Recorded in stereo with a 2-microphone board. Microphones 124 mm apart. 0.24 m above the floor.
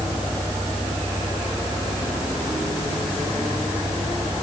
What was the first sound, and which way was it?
Only background noise.